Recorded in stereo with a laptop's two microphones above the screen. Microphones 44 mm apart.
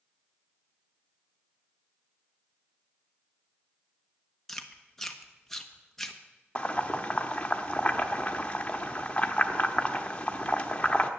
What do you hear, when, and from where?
4.5 s chewing: 10° left (ahead or behind), 1.1 m
6.5 s boiling: 30° left (ahead or behind), 1.1 m